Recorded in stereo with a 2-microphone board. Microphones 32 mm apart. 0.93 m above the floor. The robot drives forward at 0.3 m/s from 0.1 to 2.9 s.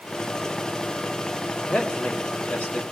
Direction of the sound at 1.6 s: 60° left (ahead or behind).